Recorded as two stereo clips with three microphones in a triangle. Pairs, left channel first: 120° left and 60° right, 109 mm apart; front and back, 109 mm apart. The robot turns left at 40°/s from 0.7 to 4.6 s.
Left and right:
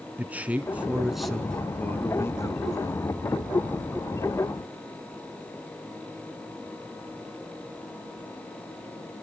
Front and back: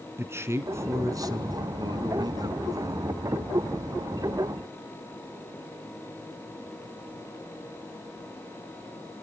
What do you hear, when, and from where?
0.2 s a man speaking: 130° right, 1.9 m; by 3.1 s 135° left, 1.9 m